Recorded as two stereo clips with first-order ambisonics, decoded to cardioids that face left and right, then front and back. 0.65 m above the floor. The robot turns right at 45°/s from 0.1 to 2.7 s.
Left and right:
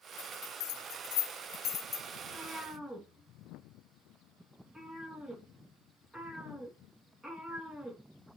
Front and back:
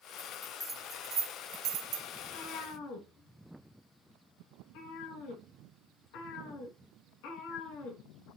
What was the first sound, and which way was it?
A bell, 75° left.